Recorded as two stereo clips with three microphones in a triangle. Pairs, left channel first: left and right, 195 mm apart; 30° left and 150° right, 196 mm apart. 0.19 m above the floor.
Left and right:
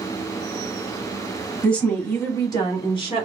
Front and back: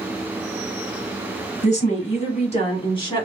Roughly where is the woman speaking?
Ahead.